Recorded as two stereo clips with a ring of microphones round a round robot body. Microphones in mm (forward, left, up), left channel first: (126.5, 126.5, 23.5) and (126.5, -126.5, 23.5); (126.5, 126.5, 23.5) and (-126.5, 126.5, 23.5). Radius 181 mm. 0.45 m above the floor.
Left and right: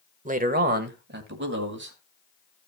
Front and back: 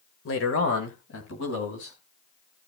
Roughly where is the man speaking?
Ahead right.